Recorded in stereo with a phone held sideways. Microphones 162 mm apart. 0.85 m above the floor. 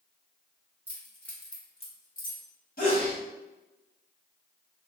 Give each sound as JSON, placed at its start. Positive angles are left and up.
{"t": 0.9, "sound": "keys jangling", "side_deg": -10, "distance_m": 1.2}
{"t": 2.8, "sound": "a sneeze", "side_deg": 65, "distance_m": 1.6}